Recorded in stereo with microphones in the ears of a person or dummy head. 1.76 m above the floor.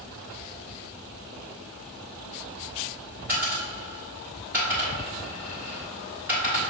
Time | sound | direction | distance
3.3 | a dropped coin | 10° right (ahead or behind) | 1.3 m